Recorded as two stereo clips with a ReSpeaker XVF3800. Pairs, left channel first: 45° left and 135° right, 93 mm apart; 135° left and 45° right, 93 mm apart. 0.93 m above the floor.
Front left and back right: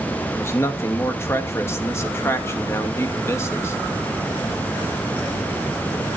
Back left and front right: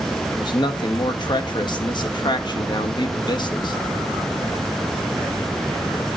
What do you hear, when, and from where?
0.3 s a man speaking: 105° left, 1.3 m